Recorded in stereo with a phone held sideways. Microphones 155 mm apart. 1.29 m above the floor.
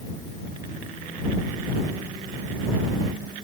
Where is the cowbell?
I don't hear a cowbell.